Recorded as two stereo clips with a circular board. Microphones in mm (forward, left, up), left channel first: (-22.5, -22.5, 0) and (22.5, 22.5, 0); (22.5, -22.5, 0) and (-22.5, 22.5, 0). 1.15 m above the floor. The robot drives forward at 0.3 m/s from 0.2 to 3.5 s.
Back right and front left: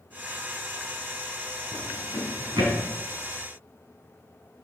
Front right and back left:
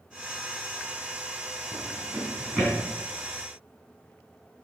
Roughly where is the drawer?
Ahead left.